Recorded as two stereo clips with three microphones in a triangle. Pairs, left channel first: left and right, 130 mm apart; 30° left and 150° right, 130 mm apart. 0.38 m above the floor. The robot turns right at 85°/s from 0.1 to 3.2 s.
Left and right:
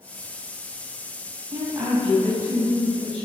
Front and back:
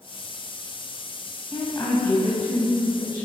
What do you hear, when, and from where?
1.5 s a woman speaking: 55° right, 2.5 m; by 3.2 s 90° left, 2.5 m